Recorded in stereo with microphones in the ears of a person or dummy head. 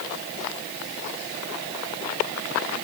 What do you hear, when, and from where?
Only background noise.